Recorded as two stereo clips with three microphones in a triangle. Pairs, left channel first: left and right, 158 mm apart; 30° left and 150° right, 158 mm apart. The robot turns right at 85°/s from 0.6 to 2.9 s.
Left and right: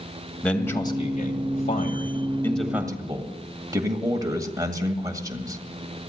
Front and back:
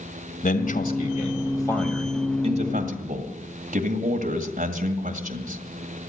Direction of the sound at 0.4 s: 10° left.